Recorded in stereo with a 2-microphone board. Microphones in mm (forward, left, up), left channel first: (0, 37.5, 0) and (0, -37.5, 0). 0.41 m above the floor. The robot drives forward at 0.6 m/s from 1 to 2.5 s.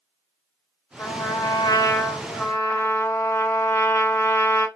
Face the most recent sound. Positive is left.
turn(degrees=35)  # may be behind; listen again after turning